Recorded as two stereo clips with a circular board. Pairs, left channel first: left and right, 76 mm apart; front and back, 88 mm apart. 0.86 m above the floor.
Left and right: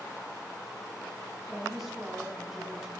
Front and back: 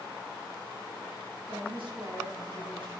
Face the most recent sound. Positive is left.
turn(degrees=-175)